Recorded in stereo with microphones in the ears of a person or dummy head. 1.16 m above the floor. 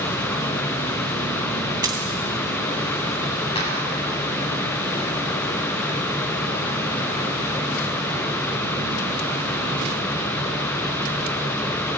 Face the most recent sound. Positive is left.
turn(degrees=30)  # may be behind; listen again after turning